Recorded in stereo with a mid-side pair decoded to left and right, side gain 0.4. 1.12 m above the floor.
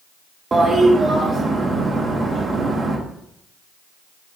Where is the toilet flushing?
35° right, 0.9 m.